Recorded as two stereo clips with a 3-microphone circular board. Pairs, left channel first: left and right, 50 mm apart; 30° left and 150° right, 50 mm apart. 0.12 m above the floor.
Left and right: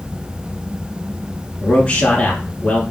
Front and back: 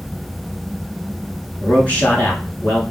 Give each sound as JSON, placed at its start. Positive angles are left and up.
{"t": 1.6, "sound": "a man speaking", "azimuth_deg": 55, "distance_m": 1.6}